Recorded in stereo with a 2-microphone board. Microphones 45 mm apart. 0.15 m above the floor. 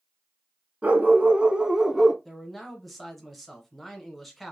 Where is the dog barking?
30° right (ahead or behind), 0.9 m; by 2.1 s 5° left (ahead or behind), 0.7 m.